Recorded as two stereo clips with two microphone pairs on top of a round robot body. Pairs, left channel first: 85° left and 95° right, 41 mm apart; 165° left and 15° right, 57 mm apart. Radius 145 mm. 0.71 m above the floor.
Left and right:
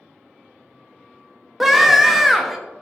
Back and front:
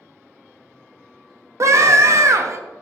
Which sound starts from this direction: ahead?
A scream, at 1.6 s.